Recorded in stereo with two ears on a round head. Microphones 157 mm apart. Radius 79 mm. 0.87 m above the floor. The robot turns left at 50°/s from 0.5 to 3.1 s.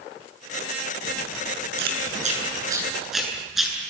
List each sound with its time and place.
1.8 s chewing: 65° right (ahead or behind), 7.5 m; by 3.8 s centre (ahead or behind), 7.5 m